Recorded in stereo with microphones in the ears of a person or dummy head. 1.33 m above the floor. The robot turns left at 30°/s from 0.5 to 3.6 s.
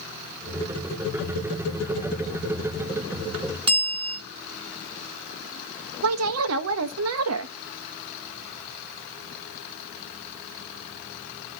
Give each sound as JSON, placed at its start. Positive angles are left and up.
{"t": 3.7, "sound": "a bell", "side_deg": -25, "distance_m": 1.2}
{"t": 6.0, "sound": "a woman speaking", "side_deg": -80, "distance_m": 1.2}